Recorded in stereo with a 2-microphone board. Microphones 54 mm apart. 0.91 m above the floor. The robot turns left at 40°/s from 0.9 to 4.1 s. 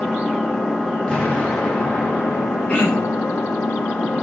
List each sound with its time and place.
0.0 s an engine running: 170° left, 1.6 m; by 4.2 s 45° left, 1.6 m
1.1 s an explosion: 20° left (ahead or behind), 0.9 m; by 3.5 s 5° right (ahead or behind), 0.9 m
2.7 s throat clearing: 20° left (ahead or behind), 1.1 m; by 3.2 s 45° left (ahead or behind), 1.1 m